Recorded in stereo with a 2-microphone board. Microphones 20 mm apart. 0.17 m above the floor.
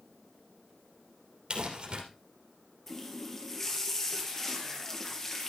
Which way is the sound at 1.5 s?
50° right (ahead or behind).